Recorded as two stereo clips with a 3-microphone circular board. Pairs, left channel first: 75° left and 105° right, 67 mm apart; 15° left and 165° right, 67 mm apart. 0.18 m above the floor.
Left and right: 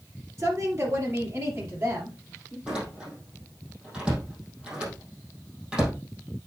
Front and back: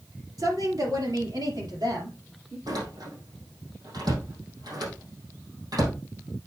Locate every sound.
0.4 s a woman speaking: 150° right, 3 m; by 2.6 s 165° right, 4 m
2.7 s a door slam: straight behind, 4.5 m